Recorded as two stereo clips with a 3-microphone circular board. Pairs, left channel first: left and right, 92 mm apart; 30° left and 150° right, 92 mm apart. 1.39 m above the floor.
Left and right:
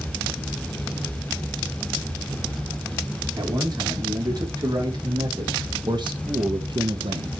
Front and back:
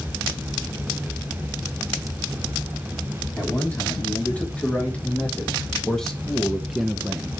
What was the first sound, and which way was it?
A man speaking, 40° right.